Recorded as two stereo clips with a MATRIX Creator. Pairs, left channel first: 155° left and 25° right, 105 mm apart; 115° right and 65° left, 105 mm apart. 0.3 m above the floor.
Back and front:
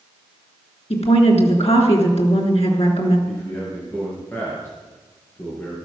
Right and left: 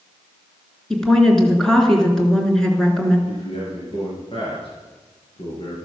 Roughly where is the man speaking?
Behind right.